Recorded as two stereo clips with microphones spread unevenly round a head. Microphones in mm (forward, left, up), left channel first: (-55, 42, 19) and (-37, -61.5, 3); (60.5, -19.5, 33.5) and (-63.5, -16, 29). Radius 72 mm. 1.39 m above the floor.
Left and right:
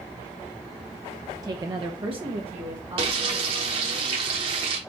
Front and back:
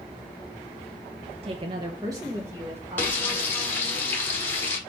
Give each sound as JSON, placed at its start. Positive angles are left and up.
{"t": 1.4, "sound": "a woman speaking", "azimuth_deg": -140, "distance_m": 0.6}
{"t": 3.0, "sound": "frying", "azimuth_deg": -65, "distance_m": 1.1}